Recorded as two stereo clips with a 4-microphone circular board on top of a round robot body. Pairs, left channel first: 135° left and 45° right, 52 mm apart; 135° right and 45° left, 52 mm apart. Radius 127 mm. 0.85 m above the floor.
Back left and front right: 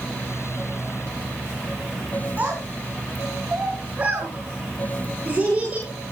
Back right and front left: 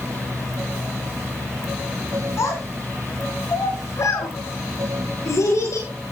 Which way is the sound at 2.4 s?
110° right.